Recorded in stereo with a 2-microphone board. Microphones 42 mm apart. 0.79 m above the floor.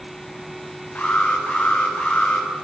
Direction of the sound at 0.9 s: 25° left (ahead or behind).